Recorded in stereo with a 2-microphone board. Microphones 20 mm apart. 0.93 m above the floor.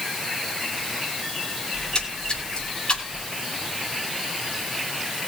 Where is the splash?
50° left (ahead or behind), 3 m.